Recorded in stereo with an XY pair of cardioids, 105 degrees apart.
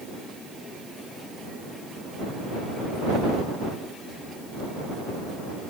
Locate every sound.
Only background noise.